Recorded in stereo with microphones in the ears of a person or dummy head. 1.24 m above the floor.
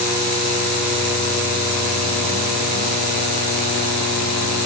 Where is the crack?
No crack in this recording.